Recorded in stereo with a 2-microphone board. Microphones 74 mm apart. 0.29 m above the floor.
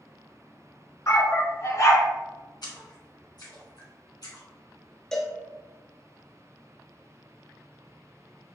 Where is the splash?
65° left (ahead or behind), 1.7 m.